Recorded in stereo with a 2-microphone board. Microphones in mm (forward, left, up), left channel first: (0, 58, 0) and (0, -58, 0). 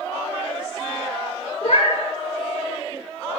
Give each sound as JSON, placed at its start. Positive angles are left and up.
{"t": 1.6, "sound": "a cat meowing", "side_deg": 70, "distance_m": 1.2}